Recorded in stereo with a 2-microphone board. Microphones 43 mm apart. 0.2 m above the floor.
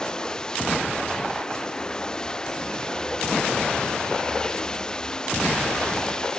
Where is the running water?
15° left (ahead or behind).